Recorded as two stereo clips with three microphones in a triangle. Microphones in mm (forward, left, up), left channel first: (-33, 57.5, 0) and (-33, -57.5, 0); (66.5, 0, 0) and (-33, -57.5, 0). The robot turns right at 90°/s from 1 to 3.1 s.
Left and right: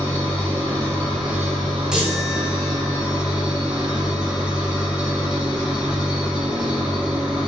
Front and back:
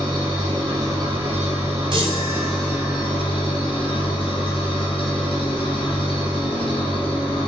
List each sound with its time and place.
0.0 s an engine running: 165° left, 1.8 m; by 7.5 s 5° right, 1.8 m
1.9 s a chime: 175° right, 0.8 m; by 3.0 s 75° right, 0.8 m